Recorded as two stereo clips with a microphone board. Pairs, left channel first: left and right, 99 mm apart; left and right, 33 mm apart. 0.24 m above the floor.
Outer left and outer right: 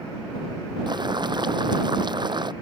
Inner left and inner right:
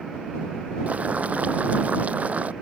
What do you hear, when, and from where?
0.9 s boiling: 50° right (ahead or behind)